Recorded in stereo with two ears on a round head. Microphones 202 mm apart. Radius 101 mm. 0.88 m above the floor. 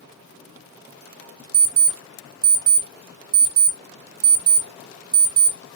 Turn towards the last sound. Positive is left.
turn(degrees=-40)  # may be behind; listen again after turning